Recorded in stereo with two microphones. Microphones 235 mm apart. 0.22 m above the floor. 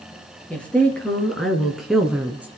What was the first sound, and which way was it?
A woman speaking, 5° left (ahead or behind).